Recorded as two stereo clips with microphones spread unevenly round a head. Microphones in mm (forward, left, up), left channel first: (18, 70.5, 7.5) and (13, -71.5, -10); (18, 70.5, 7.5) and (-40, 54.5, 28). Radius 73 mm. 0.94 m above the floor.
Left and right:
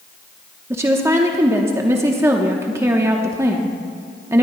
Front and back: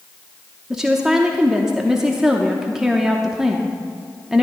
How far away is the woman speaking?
About 0.8 m.